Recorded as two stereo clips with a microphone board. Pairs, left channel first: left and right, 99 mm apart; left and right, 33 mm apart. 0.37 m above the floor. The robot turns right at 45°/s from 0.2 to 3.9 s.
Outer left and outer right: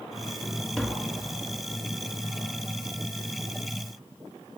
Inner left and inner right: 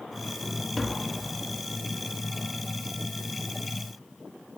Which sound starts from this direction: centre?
Tapping, at 0.8 s.